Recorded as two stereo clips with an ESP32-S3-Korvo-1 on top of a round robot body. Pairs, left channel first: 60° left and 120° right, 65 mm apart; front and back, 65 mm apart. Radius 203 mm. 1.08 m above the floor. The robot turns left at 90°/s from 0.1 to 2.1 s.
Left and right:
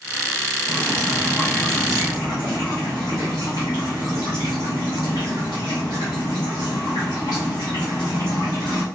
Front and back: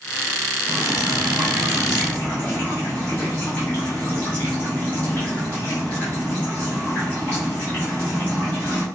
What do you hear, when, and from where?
0.7 s dripping: 160° right, 0.7 m; by 8.8 s 70° left, 0.7 m